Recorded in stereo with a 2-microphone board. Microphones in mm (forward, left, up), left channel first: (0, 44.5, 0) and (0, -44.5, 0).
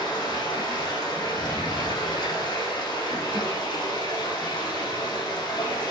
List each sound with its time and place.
0.0 s running water: 50° left (ahead or behind), 5.5 m